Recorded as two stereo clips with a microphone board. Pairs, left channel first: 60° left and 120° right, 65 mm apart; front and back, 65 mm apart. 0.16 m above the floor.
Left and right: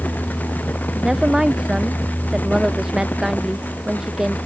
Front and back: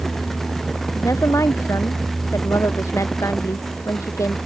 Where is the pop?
I don't hear a pop.